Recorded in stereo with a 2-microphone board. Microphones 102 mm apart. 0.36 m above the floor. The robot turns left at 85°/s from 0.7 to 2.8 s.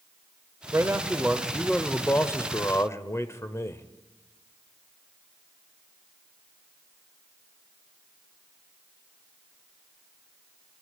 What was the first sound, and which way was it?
A man speaking, 25° right (ahead or behind).